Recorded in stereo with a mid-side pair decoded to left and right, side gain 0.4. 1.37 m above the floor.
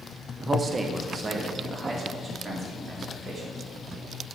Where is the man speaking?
35° right, 1.0 m; by 3.6 s 45° right, 4.5 m.